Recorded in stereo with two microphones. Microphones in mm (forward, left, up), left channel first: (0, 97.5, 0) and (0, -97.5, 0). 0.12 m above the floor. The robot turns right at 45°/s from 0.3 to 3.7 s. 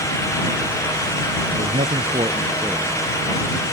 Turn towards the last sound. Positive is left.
turn(degrees=40)